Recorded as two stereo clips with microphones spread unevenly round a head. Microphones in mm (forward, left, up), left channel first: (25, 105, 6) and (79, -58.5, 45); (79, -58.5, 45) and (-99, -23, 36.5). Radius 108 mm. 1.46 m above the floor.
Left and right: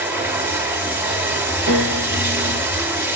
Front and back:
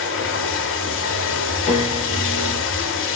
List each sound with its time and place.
0.0 s running water: straight ahead, 3 m
1.7 s a piano: 60° right, 7.5 m